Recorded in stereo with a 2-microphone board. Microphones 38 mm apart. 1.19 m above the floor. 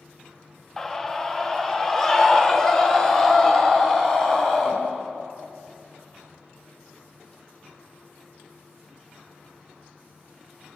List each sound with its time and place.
0.8 s a scream: 10° left (ahead or behind), 1.5 m